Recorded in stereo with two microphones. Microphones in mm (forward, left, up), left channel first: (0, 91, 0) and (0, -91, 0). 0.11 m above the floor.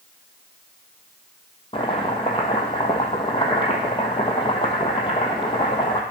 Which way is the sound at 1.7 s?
30° left (ahead or behind).